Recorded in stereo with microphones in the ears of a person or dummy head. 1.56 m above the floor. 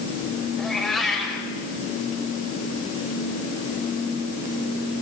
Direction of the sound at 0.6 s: 5° left (ahead or behind).